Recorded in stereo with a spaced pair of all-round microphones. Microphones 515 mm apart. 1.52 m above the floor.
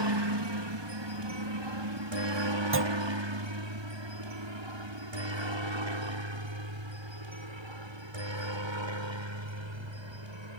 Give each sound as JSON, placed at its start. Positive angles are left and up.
{"t": 0.0, "sound": "a helicopter", "side_deg": -55}
{"t": 2.7, "sound": "a clunk", "side_deg": -25}